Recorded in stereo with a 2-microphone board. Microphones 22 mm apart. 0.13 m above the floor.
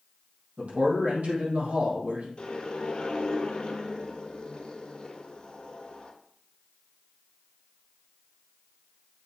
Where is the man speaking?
70° right (ahead or behind), 4 m.